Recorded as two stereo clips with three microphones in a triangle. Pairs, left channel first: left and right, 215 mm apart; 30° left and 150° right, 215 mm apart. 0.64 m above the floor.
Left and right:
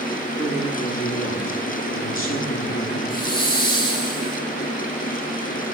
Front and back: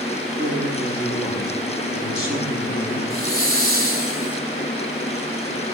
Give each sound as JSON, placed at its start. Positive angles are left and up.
{"t": 0.4, "sound": "a man speaking", "azimuth_deg": 100, "distance_m": 7.5}
{"t": 3.1, "sound": "a hiss", "azimuth_deg": 20, "distance_m": 3.0}